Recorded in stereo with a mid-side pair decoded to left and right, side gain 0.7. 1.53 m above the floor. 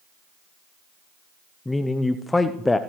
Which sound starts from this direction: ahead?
A man speaking, at 1.6 s.